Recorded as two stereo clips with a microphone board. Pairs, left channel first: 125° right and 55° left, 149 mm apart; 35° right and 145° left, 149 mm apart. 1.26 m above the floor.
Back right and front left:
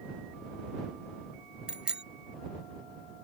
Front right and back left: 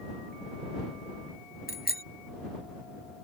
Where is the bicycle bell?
30° right.